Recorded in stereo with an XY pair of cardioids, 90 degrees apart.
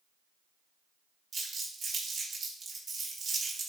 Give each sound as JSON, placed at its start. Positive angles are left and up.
{"t": 1.3, "sound": "crumpling", "azimuth_deg": -50, "distance_m": 3.0}